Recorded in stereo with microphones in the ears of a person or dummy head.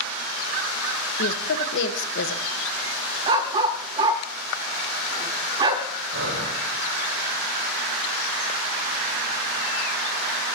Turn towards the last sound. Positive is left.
turn(degrees=-70)  # may be behind; listen again after turning